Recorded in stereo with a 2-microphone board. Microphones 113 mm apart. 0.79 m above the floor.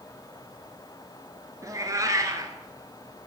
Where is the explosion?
I don't hear an explosion.